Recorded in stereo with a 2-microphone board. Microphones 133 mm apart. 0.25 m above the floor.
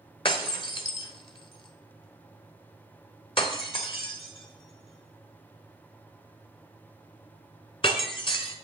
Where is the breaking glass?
40° left (ahead or behind), 0.8 m.